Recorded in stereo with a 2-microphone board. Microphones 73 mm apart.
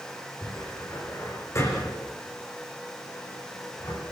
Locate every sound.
0.4 s a cupboard door: 40° left (ahead or behind), 8.5 m